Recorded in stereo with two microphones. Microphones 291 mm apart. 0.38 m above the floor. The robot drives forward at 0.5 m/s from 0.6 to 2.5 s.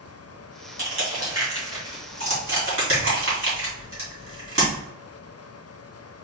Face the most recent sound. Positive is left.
turn(degrees=-50)  # may be behind; listen again after turning